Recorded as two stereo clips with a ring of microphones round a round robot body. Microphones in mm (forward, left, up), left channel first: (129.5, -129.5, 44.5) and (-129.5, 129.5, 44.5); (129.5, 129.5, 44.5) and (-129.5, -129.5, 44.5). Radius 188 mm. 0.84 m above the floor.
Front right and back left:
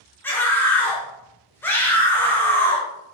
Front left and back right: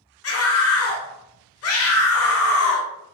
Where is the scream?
35° left, 0.8 m.